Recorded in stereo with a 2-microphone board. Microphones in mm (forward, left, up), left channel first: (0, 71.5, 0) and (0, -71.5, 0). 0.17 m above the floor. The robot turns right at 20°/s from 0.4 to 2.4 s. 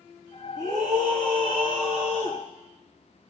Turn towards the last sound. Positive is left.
turn(degrees=-65)